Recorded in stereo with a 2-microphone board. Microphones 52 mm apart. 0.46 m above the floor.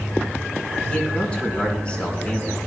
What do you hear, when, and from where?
0.9 s a man speaking: 20° left (ahead or behind), 5 m